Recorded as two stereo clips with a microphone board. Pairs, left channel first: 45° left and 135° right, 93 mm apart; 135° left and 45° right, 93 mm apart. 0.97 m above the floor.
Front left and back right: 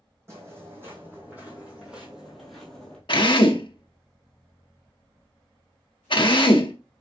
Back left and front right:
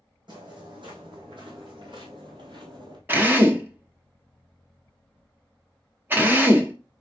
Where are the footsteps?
75° right, 3 m; by 3.0 s 30° right, 1.7 m.